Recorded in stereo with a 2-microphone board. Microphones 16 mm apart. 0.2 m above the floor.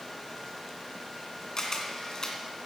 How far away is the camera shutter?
About 2.0 m.